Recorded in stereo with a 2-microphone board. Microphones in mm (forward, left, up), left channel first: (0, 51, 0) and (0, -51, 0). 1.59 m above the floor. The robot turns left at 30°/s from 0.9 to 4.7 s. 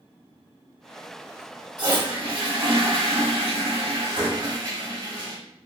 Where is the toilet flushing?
45° right, 1.1 m; by 5.4 s 135° right, 1.1 m.